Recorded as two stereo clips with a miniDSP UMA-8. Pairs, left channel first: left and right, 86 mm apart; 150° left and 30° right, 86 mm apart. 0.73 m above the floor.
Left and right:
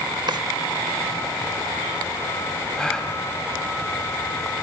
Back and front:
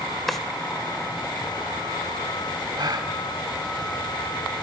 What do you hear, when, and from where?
0.3 s a drawer: 120° right, 1.2 m
2.8 s a gasp: 5° left, 2 m